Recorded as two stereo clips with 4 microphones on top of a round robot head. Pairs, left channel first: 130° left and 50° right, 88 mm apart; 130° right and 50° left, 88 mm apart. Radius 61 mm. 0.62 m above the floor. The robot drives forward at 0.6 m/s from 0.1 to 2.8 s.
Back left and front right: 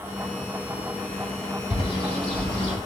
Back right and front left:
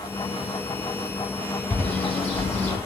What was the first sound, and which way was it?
A bird, 160° left.